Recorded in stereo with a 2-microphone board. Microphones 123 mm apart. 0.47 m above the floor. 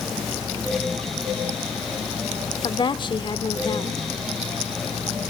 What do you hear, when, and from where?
2.6 s a woman speaking: 40° left (ahead or behind), 1.2 m